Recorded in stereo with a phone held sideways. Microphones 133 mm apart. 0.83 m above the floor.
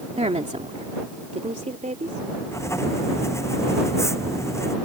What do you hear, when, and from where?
0.2 s a woman speaking: 55° right (ahead or behind); by 2.2 s 70° right (ahead or behind)
2.5 s writing: 20° left (ahead or behind)